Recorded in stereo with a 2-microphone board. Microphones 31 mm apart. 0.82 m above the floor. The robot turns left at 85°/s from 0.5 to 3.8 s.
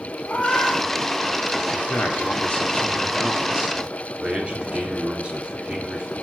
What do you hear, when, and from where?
0.2 s a cat meowing: 50° left (ahead or behind), 1.9 m; by 1.9 s 15° left (ahead or behind), 1.9 m
1.7 s a man speaking: 140° left, 2.5 m; by 6.1 s 40° right, 2.5 m